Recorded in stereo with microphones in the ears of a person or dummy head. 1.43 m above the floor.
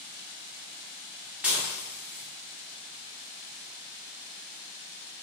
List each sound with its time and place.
1.4 s dishes clattering: 5° right (ahead or behind), 1.6 m